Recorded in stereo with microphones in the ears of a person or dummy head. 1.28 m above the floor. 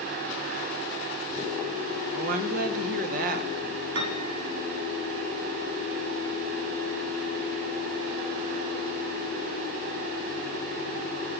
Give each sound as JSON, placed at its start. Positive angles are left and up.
{"t": 2.1, "sound": "a woman speaking", "side_deg": -35, "distance_m": 2.0}
{"t": 4.0, "sound": "a piano", "side_deg": -65, "distance_m": 3.5}